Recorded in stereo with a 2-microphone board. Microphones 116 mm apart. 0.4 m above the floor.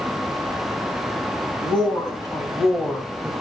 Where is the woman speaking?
45° left (ahead or behind), 3.5 m; by 3.3 s 5° left (ahead or behind), 3 m.